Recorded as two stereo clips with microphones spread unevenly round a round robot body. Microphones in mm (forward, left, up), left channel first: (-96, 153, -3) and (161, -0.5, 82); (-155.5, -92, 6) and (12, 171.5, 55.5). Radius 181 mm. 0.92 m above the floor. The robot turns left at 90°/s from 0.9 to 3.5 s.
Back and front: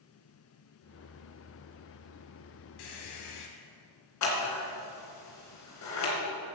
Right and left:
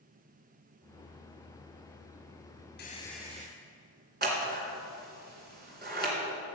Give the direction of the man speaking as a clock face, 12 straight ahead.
I don't hear a man speaking.